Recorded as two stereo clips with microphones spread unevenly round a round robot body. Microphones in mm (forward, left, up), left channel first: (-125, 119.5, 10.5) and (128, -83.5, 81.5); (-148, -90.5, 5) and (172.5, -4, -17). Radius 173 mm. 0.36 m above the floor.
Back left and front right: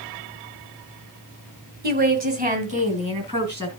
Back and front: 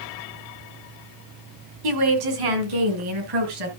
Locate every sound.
1.8 s a woman speaking: 30° left, 2 m; by 3.7 s 35° left, 4 m